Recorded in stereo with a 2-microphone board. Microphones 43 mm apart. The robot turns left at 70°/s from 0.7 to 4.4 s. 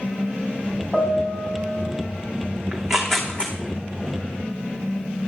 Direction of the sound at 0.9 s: 15° right.